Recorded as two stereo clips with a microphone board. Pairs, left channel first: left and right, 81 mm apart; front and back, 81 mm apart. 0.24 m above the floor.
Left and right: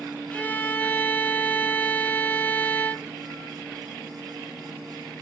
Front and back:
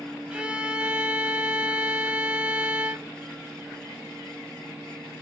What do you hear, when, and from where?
0.3 s a violin: 125° left, 0.6 m